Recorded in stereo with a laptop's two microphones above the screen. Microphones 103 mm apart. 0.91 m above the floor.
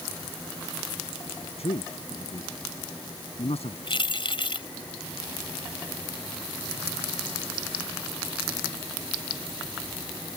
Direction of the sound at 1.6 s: 80° left.